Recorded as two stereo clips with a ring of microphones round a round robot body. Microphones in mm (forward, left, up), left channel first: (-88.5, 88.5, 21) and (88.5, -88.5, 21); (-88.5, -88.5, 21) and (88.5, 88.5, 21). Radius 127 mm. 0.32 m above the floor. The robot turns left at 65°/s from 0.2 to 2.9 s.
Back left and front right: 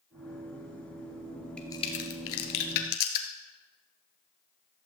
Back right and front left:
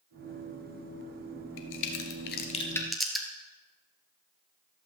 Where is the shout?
No shout in this recording.